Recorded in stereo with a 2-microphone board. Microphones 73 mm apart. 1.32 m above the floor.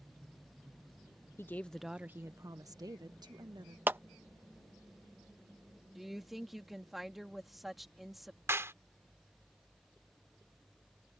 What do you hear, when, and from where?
1.4 s a woman speaking: 35° left (ahead or behind); by 3.8 s 70° right (ahead or behind)
3.9 s a clap: 25° right (ahead or behind)
6.0 s a woman speaking: centre (ahead or behind)
8.5 s a clap: 35° right (ahead or behind)